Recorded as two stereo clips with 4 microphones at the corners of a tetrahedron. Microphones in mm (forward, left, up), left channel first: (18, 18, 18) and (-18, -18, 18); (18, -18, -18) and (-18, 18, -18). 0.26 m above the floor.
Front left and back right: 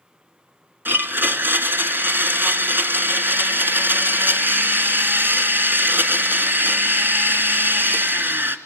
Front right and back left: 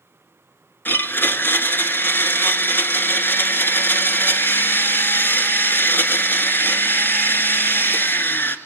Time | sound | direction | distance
0.8 | a blender | 90° right | 1.6 m